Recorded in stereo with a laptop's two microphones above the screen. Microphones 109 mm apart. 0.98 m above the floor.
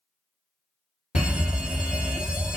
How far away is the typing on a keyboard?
No typing on a keyboard in this recording.